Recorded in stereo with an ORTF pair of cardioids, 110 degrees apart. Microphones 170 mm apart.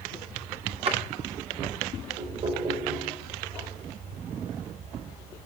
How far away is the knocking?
About 4.5 m.